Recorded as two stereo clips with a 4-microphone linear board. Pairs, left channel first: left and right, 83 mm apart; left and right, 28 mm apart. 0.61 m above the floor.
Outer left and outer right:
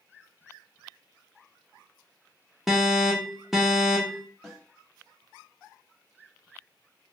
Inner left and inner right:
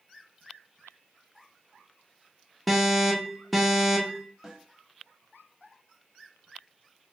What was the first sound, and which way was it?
An alarm, centre (ahead or behind).